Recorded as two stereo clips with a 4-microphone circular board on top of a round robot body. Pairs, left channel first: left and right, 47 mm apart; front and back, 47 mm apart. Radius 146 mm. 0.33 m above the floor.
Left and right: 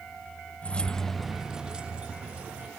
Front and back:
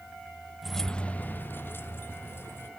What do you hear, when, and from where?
0.6 s keys jangling: 100° left, 0.6 m; by 2.7 s 25° right, 1.4 m